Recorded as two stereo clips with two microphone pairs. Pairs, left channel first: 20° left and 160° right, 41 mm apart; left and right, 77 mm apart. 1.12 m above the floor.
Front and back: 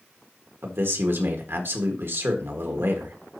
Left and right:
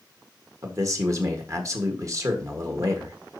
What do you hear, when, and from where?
0.6 s a man speaking: 135° right, 1.6 m